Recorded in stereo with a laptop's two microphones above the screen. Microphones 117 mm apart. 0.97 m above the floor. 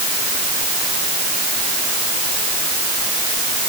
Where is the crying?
No crying in this recording.